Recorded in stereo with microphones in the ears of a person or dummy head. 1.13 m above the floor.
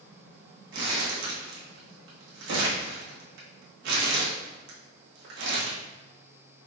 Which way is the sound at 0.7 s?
70° right (ahead or behind).